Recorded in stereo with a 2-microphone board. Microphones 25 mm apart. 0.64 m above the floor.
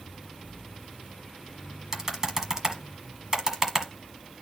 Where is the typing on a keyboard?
20° right (ahead or behind), 1.4 m.